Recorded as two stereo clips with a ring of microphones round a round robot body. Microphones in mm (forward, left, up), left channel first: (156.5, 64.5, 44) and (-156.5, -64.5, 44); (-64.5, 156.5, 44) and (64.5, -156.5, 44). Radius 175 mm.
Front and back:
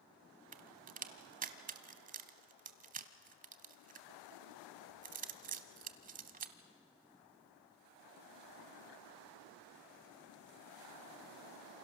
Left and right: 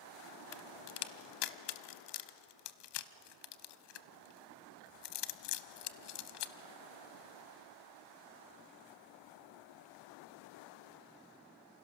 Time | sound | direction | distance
0.5 | a crack | 135° left | 0.8 m